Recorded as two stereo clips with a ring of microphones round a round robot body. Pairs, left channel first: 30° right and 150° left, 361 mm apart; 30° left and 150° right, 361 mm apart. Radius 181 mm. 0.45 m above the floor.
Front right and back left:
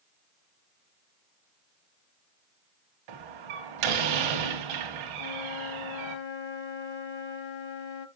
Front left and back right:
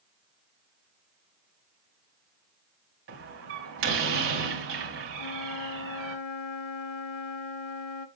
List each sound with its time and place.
3.1 s a door slam: 150° left, 2.5 m
5.2 s a flute: 10° left, 1.0 m